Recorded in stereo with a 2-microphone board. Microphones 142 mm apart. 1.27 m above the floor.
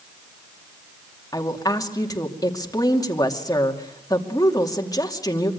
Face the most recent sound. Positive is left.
turn(degrees=25)  # may be behind; listen again after turning